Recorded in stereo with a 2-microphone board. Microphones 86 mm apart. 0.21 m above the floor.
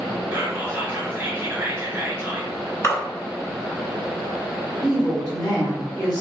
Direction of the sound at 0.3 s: 20° right (ahead or behind).